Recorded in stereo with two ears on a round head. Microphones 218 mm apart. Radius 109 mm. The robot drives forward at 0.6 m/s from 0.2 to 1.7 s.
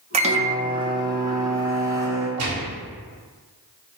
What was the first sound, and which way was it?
A microwave, 25° right (ahead or behind).